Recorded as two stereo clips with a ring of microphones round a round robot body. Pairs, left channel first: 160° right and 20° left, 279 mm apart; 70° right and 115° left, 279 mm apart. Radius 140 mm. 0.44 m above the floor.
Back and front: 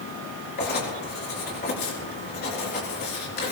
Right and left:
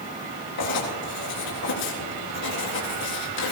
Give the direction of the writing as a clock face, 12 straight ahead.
3 o'clock.